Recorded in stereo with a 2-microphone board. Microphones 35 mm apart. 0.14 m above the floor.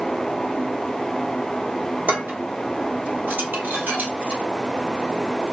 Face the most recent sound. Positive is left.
turn(degrees=-70)  # may be behind; listen again after turning